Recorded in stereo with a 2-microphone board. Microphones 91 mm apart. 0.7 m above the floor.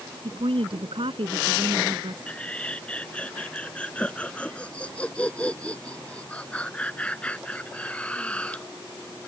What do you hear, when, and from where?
0.2 s a woman speaking: 80° right
2.3 s laughter: 15° left (ahead or behind)